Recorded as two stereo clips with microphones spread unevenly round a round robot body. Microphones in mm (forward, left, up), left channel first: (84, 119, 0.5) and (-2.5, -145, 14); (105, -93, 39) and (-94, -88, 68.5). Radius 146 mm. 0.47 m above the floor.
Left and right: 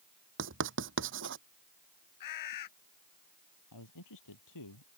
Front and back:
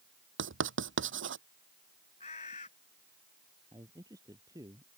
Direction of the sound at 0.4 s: 160° right.